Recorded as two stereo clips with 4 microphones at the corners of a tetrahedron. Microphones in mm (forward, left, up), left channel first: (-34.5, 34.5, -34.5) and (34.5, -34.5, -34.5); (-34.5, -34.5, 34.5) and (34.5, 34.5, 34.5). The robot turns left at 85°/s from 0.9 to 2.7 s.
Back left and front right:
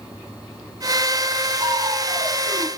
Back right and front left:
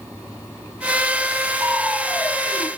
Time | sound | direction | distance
1.6 | crushing | 10° right | 1.7 m